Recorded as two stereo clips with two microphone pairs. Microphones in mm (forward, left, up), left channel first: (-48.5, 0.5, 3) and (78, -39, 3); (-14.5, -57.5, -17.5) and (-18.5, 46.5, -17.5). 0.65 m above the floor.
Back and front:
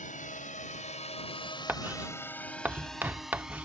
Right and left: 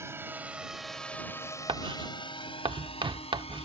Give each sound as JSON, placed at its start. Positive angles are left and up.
{"t": 0.0, "sound": "a drone", "azimuth_deg": 155}
{"t": 1.7, "sound": "writing", "azimuth_deg": 55}